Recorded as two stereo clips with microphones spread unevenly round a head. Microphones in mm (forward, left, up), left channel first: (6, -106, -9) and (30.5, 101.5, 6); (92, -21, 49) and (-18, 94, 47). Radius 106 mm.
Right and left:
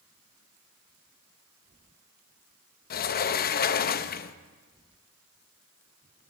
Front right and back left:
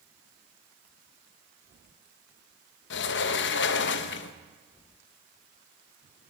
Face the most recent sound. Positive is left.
turn(degrees=-45)